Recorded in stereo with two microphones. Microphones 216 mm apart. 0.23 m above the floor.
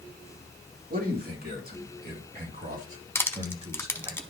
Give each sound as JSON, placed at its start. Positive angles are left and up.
{"t": 0.9, "sound": "a man speaking", "side_deg": -45, "distance_m": 3.0}
{"t": 3.1, "sound": "crushing", "side_deg": 10, "distance_m": 0.7}